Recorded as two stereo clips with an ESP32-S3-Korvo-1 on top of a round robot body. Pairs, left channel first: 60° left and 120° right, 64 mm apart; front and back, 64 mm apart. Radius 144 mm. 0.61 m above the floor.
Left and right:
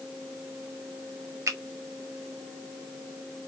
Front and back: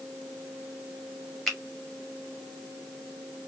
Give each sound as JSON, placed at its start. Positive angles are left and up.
{"t": 1.5, "sound": "a finger snap", "azimuth_deg": -90, "distance_m": 1.9}